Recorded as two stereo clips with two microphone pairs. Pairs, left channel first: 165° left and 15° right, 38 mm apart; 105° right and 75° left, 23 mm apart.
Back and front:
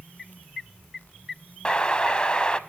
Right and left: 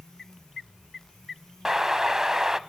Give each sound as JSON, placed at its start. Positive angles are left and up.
{"t": 1.6, "sound": "an explosion", "azimuth_deg": 125, "distance_m": 0.6}